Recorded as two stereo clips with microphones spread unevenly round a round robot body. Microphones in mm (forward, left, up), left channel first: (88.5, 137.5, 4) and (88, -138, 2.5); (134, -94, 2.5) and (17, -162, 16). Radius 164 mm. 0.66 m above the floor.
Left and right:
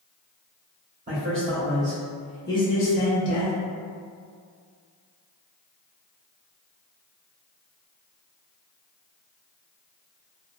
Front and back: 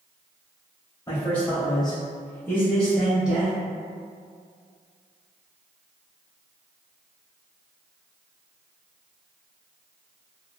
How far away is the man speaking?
About 1.2 m.